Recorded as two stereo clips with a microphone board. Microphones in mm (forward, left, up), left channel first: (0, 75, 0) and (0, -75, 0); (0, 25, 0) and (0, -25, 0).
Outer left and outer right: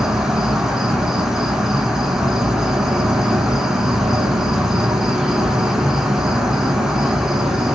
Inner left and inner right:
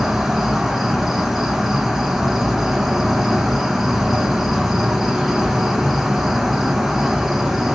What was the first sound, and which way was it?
An insect, 5° right (ahead or behind).